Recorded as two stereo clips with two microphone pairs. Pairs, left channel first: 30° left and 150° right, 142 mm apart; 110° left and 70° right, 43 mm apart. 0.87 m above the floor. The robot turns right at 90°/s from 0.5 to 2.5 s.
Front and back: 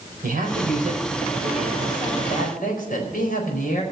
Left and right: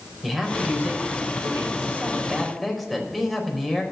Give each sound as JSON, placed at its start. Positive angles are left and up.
{"t": 0.2, "sound": "a man speaking", "azimuth_deg": -160, "distance_m": 4.5}